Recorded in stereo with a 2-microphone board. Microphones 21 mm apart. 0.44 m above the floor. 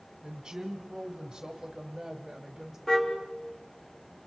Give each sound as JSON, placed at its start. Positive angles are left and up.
{"t": 0.2, "sound": "a woman speaking", "side_deg": -30, "distance_m": 2.0}
{"t": 2.9, "sound": "a car horn", "side_deg": 25, "distance_m": 3.5}